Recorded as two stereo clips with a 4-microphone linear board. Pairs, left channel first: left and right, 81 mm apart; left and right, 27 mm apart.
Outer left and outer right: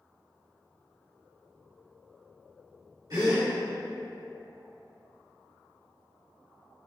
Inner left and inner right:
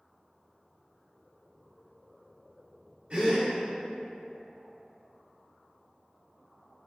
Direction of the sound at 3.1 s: 55° right (ahead or behind).